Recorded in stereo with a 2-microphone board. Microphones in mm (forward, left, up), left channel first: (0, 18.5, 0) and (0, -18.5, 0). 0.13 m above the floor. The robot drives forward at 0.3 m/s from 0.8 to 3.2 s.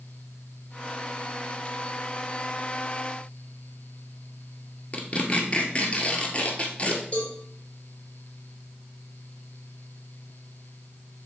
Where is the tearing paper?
35° left (ahead or behind), 1.3 m.